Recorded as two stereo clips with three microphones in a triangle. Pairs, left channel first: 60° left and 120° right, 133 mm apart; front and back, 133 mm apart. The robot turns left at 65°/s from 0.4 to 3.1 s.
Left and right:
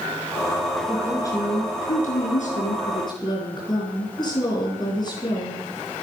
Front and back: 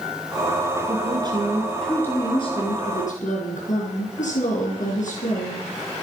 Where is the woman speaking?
150° left, 4 m; by 5.7 s 5° left, 4 m.